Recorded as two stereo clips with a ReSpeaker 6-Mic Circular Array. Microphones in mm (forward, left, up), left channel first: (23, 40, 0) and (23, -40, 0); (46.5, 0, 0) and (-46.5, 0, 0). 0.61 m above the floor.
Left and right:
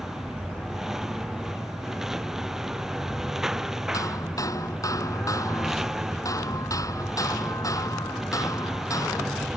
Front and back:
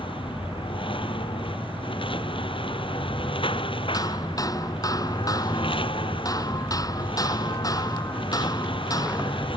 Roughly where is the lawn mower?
Ahead.